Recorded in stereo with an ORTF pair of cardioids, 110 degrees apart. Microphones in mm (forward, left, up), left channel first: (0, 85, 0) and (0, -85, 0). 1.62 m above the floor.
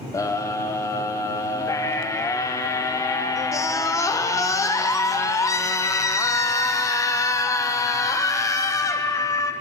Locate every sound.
0.1 s a scream: 20° left, 1.1 m